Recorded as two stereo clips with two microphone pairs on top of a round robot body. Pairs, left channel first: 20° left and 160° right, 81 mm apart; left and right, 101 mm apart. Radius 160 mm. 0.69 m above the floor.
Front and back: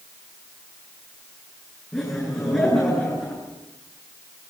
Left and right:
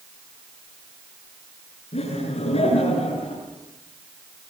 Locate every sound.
1.9 s laughter: 95° left, 8 m